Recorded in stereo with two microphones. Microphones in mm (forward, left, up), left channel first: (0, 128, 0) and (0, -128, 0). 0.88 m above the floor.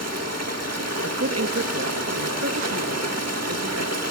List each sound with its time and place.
0.0 s running water: 85° right, 1.3 m
1.0 s a woman speaking: 70° right (ahead or behind), 0.9 m